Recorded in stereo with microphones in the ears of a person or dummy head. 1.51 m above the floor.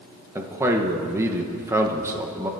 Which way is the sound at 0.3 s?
10° right (ahead or behind).